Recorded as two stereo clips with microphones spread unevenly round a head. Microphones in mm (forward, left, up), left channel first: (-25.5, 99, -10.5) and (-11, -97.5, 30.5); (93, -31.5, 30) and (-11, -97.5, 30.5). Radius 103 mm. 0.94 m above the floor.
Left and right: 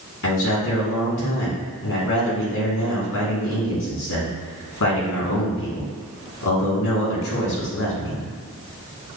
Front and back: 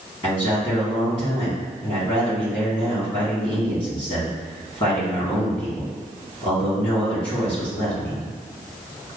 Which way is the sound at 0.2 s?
95° left.